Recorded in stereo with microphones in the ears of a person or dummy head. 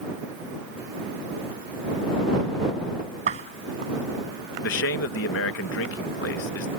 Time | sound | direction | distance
3.3 | a door slam | 45° right (ahead or behind) | ?
4.6 | a man speaking | 65° left (ahead or behind) | ?